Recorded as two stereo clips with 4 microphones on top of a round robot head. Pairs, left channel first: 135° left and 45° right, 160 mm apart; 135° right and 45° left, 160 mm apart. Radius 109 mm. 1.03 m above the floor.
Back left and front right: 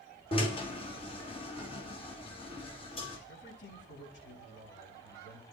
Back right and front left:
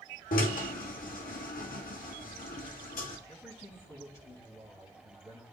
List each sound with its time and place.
0.3 s a drill: 165° right, 2.5 m
3.3 s a man speaking: 150° left, 8 m